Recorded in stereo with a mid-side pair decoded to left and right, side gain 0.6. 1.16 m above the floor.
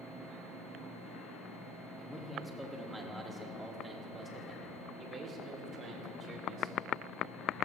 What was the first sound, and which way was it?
A man speaking, 5° left.